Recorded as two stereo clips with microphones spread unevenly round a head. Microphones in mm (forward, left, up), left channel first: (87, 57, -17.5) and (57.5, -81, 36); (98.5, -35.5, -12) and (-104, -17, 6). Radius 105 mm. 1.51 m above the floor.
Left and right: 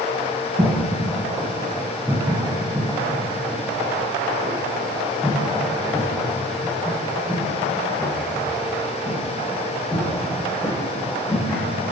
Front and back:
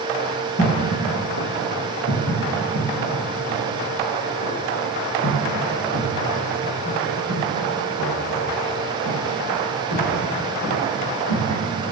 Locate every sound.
0.6 s footsteps: 45° right, 4 m; by 11.6 s 5° left, 9 m